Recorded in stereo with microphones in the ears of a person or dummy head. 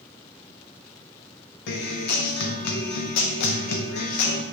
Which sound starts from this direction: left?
A guitar, at 1.7 s.